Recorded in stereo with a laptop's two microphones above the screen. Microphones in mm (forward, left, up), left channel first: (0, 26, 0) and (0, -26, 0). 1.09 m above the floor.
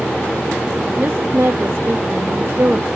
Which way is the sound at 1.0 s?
60° right (ahead or behind).